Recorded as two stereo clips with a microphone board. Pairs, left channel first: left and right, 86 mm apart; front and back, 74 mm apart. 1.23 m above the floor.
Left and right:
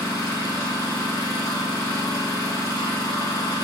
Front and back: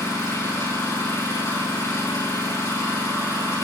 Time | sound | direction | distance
0.0 | an engine running | 40° left | 5 m